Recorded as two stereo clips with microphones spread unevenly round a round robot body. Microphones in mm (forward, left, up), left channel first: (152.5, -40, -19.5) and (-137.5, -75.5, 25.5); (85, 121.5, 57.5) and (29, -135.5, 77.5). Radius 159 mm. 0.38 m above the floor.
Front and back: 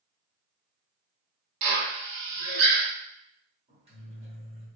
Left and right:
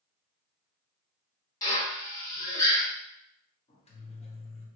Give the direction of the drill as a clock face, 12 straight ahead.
7 o'clock.